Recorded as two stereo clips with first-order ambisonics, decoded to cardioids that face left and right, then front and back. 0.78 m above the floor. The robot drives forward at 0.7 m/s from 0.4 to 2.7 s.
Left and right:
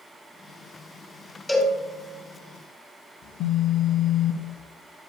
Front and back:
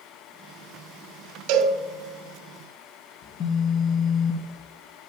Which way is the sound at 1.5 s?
175° left.